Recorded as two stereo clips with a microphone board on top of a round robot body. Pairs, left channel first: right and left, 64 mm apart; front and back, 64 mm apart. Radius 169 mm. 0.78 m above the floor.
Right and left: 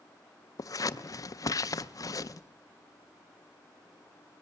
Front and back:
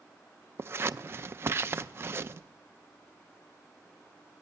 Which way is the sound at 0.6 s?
125° right.